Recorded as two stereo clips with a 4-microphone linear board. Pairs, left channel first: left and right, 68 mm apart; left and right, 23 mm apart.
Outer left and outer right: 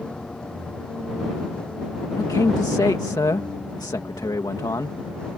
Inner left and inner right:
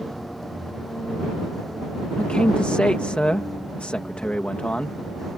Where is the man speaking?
80° left.